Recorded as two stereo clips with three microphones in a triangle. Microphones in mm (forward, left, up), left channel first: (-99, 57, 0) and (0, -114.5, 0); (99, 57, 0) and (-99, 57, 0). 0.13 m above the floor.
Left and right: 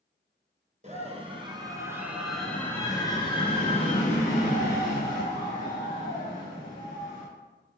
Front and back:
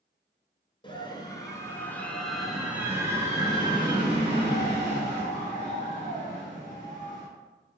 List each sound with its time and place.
0.8 s a scream: 45° right, 2 m; by 7.2 s 130° left, 4.5 m